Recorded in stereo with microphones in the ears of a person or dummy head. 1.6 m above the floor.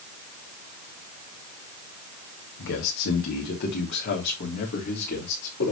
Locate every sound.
2.6 s a man speaking: 70° left (ahead or behind), 2.5 m; by 5.7 s 55° left (ahead or behind), 4 m